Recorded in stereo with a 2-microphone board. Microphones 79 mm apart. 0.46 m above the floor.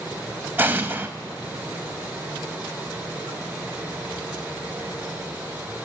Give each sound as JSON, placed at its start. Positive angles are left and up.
{"t": 0.6, "sound": "an explosion", "side_deg": -25, "distance_m": 0.6}